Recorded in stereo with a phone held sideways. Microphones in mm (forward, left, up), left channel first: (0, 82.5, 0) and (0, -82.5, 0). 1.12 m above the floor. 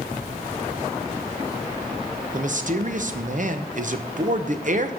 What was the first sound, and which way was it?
A man speaking, 55° right (ahead or behind).